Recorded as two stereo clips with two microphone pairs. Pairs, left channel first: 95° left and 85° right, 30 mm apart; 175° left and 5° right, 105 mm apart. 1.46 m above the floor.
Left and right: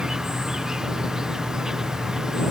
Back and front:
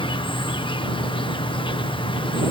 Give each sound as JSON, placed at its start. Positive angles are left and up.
{"t": 0.0, "sound": "an insect", "azimuth_deg": -155}